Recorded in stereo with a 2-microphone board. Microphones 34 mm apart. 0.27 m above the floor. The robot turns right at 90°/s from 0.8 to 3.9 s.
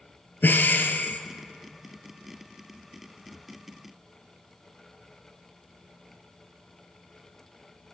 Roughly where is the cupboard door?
No cupboard door in this recording.